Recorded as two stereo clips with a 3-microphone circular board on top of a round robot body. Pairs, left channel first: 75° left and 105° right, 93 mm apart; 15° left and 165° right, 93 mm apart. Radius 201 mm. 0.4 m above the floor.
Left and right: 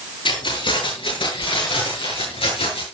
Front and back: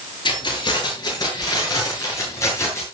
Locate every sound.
0.2 s keys jangling: 50° left, 8 m; by 2.8 s 75° left, 7.5 m